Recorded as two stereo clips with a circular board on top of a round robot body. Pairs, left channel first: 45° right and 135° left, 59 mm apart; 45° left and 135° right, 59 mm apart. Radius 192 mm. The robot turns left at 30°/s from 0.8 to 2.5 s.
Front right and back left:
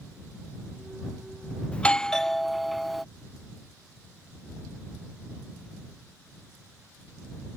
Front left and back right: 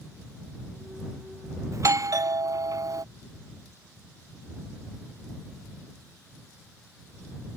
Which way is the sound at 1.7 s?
110° right.